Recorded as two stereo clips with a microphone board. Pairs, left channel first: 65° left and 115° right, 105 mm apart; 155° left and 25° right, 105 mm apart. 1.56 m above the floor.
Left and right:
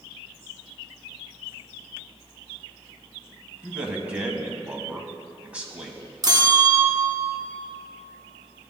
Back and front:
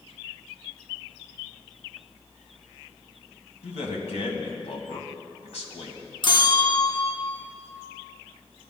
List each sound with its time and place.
3.6 s a man speaking: 170° left, 1.5 m
6.2 s a bell: 165° right, 0.8 m